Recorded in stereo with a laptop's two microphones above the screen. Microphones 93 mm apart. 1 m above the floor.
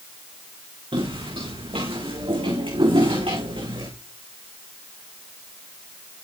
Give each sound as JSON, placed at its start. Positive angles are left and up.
{"t": 0.9, "sound": "footsteps", "side_deg": -80, "distance_m": 5.5}